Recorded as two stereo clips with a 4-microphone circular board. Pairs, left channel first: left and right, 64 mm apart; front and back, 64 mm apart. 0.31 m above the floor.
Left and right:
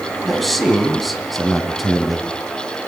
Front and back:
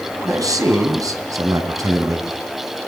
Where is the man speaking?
Straight behind, 3 m.